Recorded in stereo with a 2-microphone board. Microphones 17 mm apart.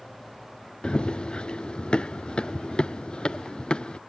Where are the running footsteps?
80° left; by 4.0 s 70° left (ahead or behind).